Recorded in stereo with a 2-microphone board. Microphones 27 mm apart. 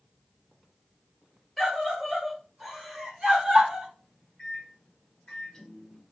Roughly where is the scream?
Centre.